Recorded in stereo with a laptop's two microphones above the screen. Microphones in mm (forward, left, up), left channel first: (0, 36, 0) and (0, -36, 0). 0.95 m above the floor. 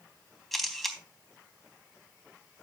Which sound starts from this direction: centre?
A camera shutter, at 0.5 s.